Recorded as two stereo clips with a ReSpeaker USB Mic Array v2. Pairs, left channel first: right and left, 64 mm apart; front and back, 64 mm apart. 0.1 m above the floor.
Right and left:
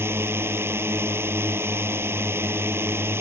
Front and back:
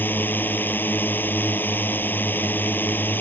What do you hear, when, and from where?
0.0 s a drone: 50° left